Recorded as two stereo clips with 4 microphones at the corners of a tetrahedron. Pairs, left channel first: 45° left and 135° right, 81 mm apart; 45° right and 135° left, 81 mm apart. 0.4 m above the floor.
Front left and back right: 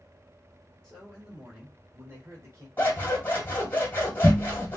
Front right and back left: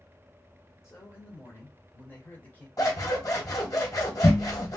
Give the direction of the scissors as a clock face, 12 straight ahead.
1 o'clock.